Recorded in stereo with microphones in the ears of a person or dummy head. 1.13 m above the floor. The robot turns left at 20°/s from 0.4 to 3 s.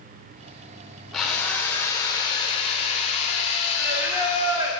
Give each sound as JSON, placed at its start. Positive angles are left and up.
{"t": 1.1, "sound": "a drill", "azimuth_deg": 175, "distance_m": 0.8}
{"t": 3.8, "sound": "singing", "side_deg": -15, "distance_m": 1.0}